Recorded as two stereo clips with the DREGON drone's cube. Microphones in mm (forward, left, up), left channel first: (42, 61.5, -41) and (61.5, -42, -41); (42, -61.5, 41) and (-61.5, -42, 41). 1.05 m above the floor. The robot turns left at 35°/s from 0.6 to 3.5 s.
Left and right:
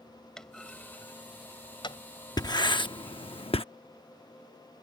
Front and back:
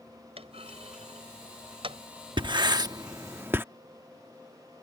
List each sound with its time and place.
0.4 s a clunk: 175° right; by 2.0 s 135° left
2.4 s writing: 145° left; by 3.6 s 105° left